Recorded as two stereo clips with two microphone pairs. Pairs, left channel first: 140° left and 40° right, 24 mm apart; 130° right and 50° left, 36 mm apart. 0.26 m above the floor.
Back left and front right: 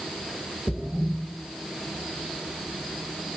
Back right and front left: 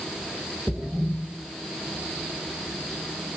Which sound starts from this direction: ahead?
A splash, at 0.7 s.